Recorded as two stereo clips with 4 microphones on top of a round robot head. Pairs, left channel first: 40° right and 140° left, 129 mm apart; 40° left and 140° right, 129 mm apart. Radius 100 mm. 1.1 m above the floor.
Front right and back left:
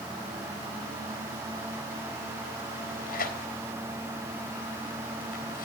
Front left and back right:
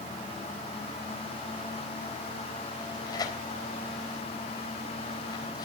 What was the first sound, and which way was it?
Tearing paper, 25° right.